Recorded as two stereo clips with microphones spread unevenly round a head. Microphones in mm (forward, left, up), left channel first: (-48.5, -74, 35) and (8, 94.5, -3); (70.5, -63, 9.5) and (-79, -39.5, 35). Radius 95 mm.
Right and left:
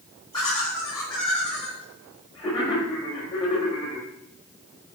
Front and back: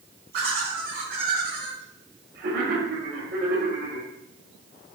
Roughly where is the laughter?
Behind.